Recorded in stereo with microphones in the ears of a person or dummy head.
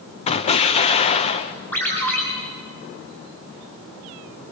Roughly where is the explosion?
Left.